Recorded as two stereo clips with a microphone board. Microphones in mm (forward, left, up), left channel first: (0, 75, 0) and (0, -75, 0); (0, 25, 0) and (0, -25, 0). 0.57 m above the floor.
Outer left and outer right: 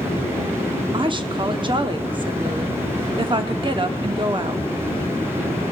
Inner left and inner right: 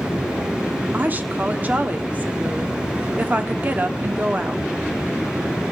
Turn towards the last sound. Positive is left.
turn(degrees=-35)  # may be behind; listen again after turning